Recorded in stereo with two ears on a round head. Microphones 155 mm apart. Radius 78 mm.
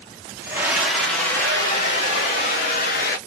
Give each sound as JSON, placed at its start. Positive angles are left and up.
{"t": 0.4, "sound": "a scream", "side_deg": -15, "distance_m": 1.1}